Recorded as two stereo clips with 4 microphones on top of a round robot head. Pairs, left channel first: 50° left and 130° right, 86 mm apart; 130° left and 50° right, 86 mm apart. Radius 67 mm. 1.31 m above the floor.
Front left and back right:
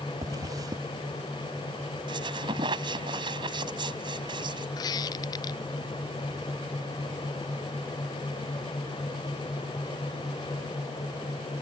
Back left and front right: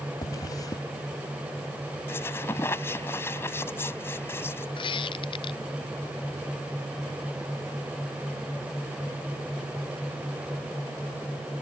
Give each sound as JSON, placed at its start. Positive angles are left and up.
{"t": 0.2, "sound": "a zipper", "azimuth_deg": 180}
{"t": 2.1, "sound": "a squeak", "azimuth_deg": -165}
{"t": 4.8, "sound": "a squeak", "azimuth_deg": 100}